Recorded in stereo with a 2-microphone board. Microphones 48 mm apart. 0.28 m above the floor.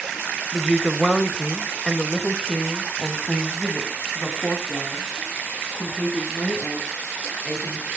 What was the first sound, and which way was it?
A woman speaking, 10° right (ahead or behind).